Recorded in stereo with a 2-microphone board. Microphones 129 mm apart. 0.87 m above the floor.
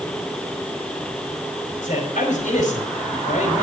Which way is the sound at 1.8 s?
80° left.